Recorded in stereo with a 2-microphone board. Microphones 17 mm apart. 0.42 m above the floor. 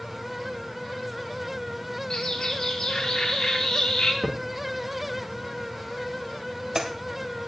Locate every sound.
2.1 s a bird: 70° left (ahead or behind), 3 m
4.2 s a crack: 30° right (ahead or behind), 1.5 m